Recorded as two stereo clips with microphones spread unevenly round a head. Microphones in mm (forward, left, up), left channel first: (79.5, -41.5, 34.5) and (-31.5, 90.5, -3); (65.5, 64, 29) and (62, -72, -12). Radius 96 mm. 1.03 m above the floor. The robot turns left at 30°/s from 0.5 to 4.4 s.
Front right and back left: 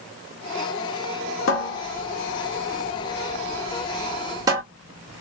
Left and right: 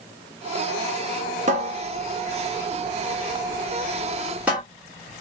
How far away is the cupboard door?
About 1.1 m.